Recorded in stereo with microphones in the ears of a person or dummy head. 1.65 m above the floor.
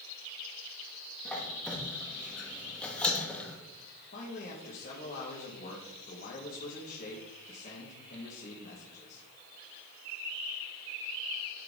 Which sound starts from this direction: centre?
A squeak, at 1.2 s.